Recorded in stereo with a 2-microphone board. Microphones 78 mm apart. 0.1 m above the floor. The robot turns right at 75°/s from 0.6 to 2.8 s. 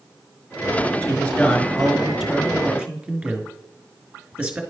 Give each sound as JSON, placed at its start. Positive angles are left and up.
{"t": 1.0, "sound": "a man speaking", "side_deg": 20, "distance_m": 1.2}